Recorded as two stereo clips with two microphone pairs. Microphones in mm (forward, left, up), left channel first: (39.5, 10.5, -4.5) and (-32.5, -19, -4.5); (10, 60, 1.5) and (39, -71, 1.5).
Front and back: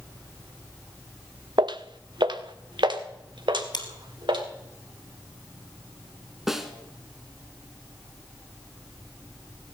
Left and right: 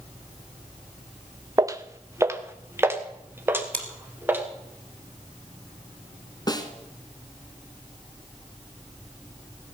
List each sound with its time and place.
1.6 s footsteps: 140° right, 0.9 m; by 4.4 s 155° right, 3.5 m
3.7 s chewing: 25° left, 2.0 m
6.5 s a snare drum: 120° left, 1.5 m